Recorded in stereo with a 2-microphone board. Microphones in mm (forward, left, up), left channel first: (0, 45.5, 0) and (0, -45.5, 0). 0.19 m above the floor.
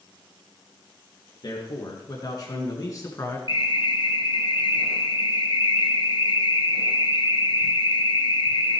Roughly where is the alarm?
Left.